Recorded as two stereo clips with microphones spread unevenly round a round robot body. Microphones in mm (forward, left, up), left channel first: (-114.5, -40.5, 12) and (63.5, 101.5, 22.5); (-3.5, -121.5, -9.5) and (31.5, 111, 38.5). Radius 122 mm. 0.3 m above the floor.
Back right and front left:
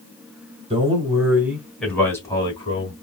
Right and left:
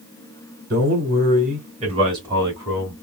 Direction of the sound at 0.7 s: 85° left.